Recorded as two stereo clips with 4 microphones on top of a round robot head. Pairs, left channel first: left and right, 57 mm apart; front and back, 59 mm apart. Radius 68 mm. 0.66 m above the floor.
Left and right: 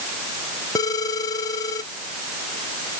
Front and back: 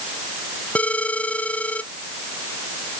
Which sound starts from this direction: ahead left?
A phone ringing, at 0.8 s.